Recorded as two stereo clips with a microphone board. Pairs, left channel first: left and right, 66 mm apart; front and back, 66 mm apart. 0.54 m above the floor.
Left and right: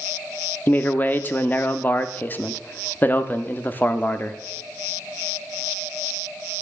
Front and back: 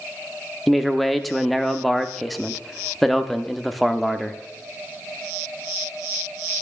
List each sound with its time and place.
0.7 s a man speaking: 85° left, 0.8 m